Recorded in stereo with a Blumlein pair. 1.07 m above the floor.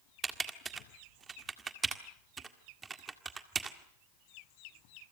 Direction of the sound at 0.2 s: 15° right.